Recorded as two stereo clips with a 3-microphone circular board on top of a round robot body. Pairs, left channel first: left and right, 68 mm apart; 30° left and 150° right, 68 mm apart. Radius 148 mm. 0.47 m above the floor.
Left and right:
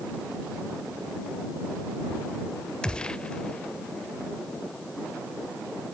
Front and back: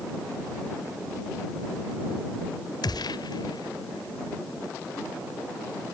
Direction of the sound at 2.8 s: 15° left.